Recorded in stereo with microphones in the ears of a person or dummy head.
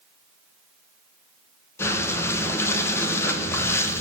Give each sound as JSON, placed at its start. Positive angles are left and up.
{"t": 1.8, "sound": "breathing", "side_deg": 15, "distance_m": 1.2}